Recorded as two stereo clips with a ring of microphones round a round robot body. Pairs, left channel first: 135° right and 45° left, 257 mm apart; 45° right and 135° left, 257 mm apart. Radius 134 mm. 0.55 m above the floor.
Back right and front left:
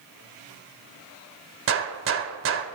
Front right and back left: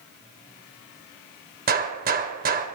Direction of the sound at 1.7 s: 80° left.